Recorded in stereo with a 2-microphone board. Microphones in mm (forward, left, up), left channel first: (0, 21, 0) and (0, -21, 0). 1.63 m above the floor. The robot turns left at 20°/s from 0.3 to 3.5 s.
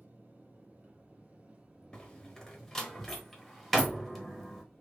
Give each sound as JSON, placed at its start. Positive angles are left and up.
{"t": 0.0, "sound": "an engine running", "azimuth_deg": -120, "distance_m": 2.0}
{"t": 1.9, "sound": "a door slam", "side_deg": 20, "distance_m": 0.9}